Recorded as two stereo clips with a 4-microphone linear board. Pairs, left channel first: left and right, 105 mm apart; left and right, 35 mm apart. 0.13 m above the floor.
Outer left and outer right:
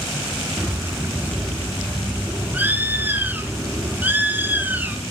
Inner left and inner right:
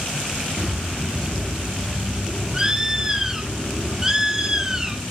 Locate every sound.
0.6 s a bird: 15° right (ahead or behind), 0.9 m